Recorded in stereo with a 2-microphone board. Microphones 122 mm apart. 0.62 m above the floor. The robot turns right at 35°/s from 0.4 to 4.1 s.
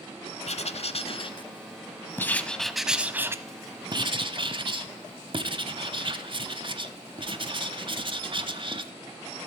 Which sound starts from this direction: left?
Writing, at 0.5 s.